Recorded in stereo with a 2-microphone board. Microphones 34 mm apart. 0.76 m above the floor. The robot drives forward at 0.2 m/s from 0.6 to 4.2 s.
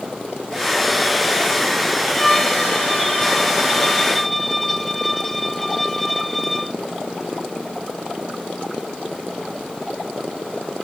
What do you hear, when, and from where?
2.1 s a violin: 5° left (ahead or behind)